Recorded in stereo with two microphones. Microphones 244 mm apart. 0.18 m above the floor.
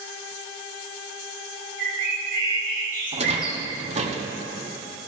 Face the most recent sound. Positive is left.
turn(degrees=-30)  # may be behind; listen again after turning